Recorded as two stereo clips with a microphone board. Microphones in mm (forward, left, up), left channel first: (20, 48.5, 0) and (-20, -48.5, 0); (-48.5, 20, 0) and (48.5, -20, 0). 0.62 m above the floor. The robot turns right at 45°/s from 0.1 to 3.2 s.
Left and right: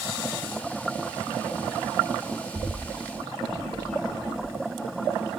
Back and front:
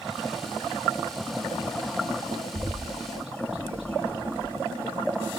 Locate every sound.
2.5 s a bird: 40° right, 3.5 m; by 4.5 s 10° right, 3.5 m